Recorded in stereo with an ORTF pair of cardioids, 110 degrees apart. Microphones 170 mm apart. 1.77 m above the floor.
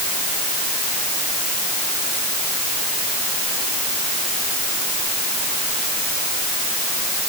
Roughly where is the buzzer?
I don't hear a buzzer.